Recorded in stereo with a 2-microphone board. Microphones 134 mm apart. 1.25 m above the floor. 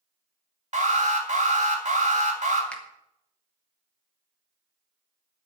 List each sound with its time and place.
0.7 s an alarm: 55° right (ahead or behind), 2.5 m
2.7 s a finger snap: 10° left (ahead or behind), 1.7 m